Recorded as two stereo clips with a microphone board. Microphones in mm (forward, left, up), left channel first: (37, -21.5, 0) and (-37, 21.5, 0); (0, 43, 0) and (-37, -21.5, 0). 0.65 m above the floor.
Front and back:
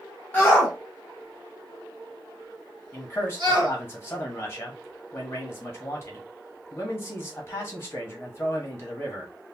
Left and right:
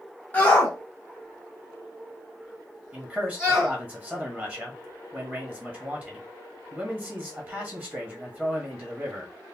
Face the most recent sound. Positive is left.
turn(degrees=-65)